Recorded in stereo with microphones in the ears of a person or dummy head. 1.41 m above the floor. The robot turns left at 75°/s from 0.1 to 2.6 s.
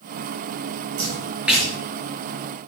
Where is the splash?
40° right (ahead or behind), 7 m; by 1.7 s 10° left (ahead or behind), 7 m.